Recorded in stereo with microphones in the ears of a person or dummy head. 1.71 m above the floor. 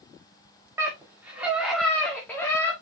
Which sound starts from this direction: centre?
A scream, at 0.8 s.